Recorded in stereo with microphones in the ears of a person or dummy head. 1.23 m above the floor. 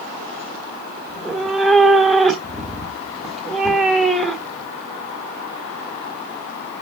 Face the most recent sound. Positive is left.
turn(degrees=0)  # may be behind; listen again after turning